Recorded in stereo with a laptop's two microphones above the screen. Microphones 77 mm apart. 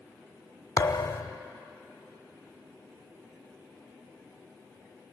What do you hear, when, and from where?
0.8 s a thud: 55° left (ahead or behind), 1.0 m